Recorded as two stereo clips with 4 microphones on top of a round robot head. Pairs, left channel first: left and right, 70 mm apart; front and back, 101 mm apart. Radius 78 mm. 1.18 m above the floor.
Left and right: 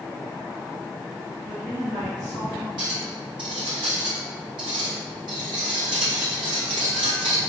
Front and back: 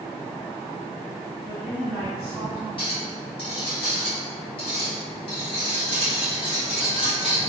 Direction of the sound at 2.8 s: 50° right.